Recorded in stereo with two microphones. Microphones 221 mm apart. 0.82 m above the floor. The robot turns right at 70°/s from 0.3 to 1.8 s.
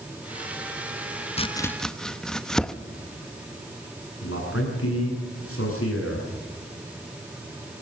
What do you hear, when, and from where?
1.4 s chopping: 25° left (ahead or behind), 0.7 m; by 2.7 s 5° left (ahead or behind), 0.7 m
4.2 s a man speaking: 80° left, 9 m